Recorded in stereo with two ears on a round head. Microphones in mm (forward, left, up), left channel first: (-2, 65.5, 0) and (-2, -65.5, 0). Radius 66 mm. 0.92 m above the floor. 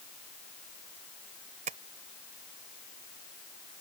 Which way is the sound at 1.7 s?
50° right (ahead or behind).